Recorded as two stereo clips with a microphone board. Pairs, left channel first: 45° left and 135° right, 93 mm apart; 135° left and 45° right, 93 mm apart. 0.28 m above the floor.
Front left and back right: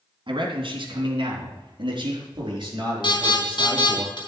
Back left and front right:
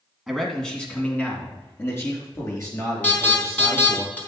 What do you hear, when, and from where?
0.3 s a man speaking: 135° right, 2.5 m; by 4.0 s 175° right, 5.5 m
3.0 s an alarm: 65° left, 4 m